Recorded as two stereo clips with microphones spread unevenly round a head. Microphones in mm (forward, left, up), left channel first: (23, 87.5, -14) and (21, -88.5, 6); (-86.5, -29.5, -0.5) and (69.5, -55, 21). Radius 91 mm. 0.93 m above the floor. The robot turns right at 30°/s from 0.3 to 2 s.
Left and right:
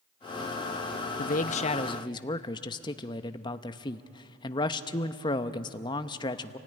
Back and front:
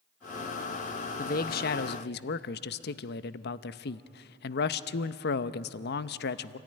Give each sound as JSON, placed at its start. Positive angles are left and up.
{"t": 1.2, "sound": "a man speaking", "azimuth_deg": 130, "distance_m": 0.6}